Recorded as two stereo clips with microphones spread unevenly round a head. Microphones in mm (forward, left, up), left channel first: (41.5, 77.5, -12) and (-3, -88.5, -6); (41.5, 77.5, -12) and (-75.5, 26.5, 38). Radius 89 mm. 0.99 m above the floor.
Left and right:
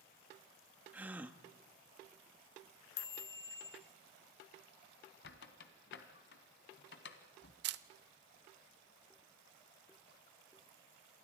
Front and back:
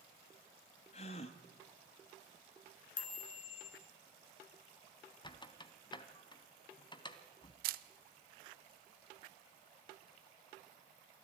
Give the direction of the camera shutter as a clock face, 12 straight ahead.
4 o'clock.